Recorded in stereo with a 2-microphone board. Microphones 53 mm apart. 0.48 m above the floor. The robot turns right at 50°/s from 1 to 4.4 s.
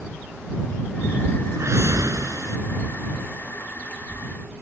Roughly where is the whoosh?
Behind right.